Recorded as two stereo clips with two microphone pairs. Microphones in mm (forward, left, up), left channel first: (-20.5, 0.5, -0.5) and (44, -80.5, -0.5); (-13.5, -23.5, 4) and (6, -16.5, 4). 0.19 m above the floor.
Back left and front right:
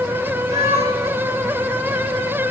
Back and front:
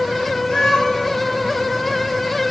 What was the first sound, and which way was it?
A cat meowing, 115° right.